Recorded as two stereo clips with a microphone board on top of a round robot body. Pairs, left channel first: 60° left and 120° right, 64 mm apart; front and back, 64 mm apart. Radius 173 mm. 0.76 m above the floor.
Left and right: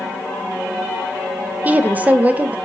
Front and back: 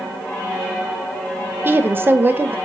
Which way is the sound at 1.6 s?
165° right.